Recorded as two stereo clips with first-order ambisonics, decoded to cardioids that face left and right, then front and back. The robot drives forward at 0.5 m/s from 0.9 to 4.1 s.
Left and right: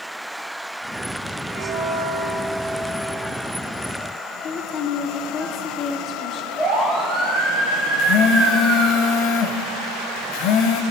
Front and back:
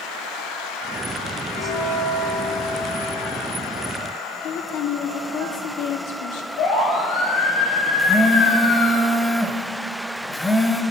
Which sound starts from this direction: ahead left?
A woman speaking, at 4.4 s.